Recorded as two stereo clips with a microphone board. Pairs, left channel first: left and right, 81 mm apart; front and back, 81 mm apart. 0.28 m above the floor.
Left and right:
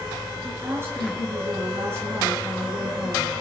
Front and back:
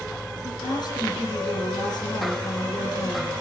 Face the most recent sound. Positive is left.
turn(degrees=-30)